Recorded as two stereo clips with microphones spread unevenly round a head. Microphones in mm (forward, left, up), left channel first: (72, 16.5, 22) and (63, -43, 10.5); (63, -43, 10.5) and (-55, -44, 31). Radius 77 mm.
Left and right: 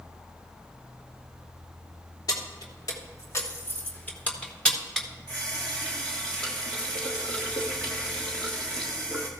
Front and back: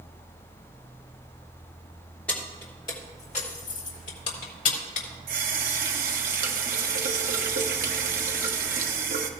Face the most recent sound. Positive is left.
turn(degrees=160)